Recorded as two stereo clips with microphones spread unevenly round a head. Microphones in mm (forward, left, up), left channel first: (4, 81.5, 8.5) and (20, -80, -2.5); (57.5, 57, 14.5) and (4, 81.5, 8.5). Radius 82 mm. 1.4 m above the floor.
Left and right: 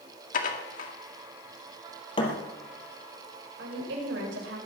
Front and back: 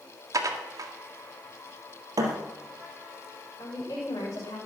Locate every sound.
0.3 s dishes clattering: 135° left, 1.9 m
2.2 s a thud: 150° left, 3 m
3.6 s a woman speaking: 80° right, 7.5 m